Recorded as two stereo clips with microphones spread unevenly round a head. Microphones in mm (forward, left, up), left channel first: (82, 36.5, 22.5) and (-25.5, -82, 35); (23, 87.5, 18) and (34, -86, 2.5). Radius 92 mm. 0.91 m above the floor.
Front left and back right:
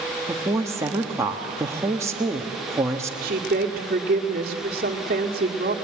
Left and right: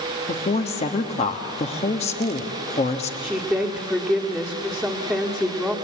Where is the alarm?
No alarm in this recording.